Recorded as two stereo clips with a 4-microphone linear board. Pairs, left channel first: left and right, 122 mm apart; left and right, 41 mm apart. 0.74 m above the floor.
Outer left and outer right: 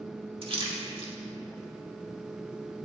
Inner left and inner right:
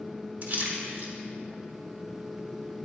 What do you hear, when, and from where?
0.4 s a splash: 50° right (ahead or behind), 1.2 m